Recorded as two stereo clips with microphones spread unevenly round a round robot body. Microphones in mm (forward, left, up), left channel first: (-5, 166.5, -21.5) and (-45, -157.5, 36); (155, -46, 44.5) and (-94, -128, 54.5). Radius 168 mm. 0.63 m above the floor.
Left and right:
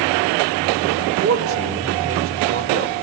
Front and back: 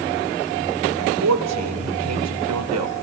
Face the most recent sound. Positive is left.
turn(degrees=-150)